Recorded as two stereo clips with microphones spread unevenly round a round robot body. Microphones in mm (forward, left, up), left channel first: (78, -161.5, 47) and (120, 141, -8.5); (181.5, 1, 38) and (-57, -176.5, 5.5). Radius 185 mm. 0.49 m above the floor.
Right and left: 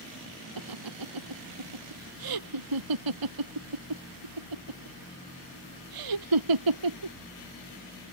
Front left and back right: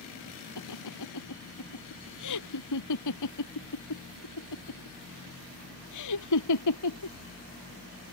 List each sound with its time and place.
0.6 s laughter: 80° left